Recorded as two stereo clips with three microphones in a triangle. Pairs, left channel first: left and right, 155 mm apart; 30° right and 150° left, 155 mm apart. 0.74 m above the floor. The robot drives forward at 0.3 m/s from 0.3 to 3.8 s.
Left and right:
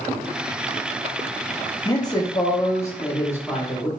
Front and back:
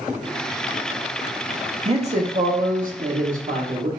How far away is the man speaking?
About 0.6 m.